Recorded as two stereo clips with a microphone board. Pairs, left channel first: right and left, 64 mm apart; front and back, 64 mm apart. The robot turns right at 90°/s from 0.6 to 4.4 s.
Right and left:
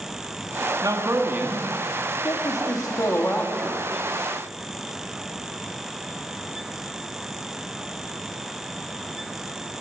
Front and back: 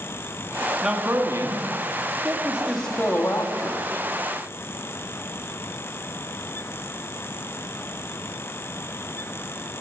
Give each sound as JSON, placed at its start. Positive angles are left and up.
{"t": 0.8, "sound": "a man speaking", "azimuth_deg": 100, "distance_m": 1.3}